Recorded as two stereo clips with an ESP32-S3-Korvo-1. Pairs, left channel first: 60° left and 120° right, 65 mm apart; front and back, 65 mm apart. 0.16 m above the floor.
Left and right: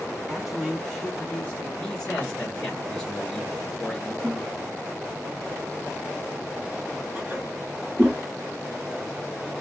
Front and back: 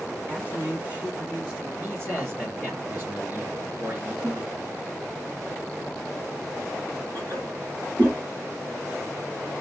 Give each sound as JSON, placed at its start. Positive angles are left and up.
{"t": 0.3, "sound": "a man speaking", "azimuth_deg": 170, "distance_m": 1.3}
{"t": 1.8, "sound": "a man speaking", "azimuth_deg": 135, "distance_m": 2.0}
{"t": 4.2, "sound": "a toilet flushing", "azimuth_deg": -175, "distance_m": 3.5}